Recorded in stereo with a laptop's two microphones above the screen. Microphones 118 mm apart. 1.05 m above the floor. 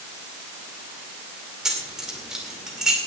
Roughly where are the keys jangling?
Centre.